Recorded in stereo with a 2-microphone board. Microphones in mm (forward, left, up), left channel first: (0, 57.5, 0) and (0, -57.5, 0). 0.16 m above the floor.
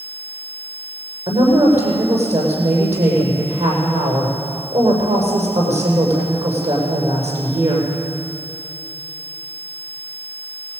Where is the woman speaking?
75° right (ahead or behind), 7.5 m.